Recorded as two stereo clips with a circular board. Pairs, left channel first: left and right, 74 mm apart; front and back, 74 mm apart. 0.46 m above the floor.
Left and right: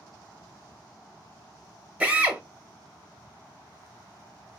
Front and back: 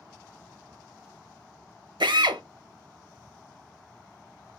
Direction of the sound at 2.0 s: 165° right.